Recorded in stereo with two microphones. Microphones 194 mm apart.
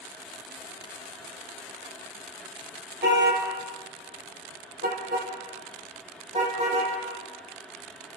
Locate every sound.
3.0 s a car horn: 70° right (ahead or behind), 3 m; by 6.9 s 35° right (ahead or behind), 6 m